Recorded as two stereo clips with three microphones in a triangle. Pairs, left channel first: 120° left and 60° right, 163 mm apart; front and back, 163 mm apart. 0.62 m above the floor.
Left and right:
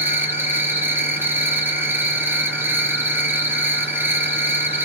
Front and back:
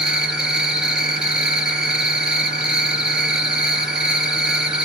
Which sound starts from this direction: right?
An insect, at 0.0 s.